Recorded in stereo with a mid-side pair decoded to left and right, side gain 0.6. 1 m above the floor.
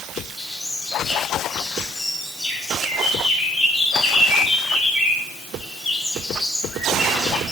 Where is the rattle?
I don't hear a rattle.